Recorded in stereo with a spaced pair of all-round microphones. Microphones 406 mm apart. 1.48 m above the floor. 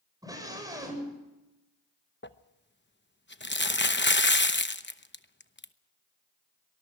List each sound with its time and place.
0.2 s a scream: 10° right (ahead or behind), 8 m
2.2 s crumpling: 25° left (ahead or behind), 0.9 m